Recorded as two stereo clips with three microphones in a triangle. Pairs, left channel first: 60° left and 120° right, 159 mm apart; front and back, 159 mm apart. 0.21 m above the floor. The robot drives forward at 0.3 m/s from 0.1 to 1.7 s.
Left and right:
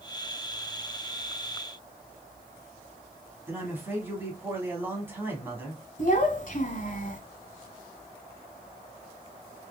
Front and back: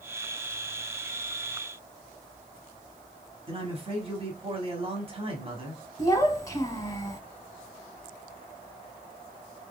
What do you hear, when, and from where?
3.5 s a man speaking: 175° left, 1.4 m
6.0 s a child speaking: 65° left, 0.9 m